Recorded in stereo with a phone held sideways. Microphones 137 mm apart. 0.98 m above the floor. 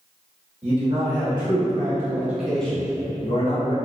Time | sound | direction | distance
0.6 | a man speaking | 40° right (ahead or behind) | 1.4 m